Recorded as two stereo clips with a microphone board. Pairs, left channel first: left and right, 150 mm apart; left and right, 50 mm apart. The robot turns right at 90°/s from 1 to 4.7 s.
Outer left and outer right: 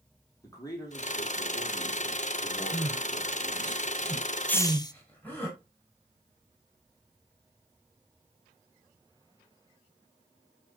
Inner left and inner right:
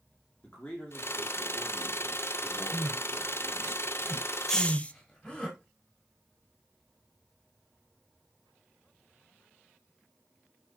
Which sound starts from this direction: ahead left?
A man speaking, at 0.4 s.